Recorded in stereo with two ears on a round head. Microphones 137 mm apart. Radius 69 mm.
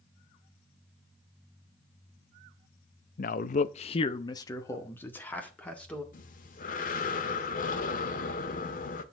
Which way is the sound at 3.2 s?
55° left (ahead or behind).